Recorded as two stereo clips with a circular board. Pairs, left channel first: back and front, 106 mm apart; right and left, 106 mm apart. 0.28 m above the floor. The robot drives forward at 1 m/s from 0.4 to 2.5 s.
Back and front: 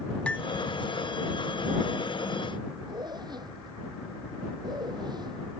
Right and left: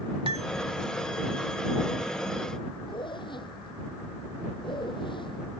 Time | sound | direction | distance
0.3 | cutlery clinking | 100° left | ?
2.9 | a zipper | 50° right | ?